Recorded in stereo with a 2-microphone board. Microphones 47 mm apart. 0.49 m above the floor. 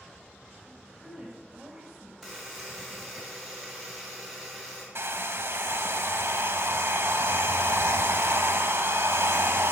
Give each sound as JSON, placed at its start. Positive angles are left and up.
{"t": 0.7, "sound": "a woman speaking", "side_deg": -5, "distance_m": 2.5}
{"t": 2.2, "sound": "a buzzer", "side_deg": 5, "distance_m": 3.5}
{"t": 5.0, "sound": "a hair dryer", "side_deg": -60, "distance_m": 0.7}